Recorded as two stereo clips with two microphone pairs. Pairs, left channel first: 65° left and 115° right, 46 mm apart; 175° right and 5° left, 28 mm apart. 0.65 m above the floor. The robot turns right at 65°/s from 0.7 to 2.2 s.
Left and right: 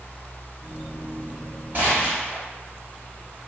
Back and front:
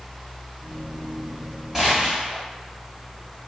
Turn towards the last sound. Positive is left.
turn(degrees=-40)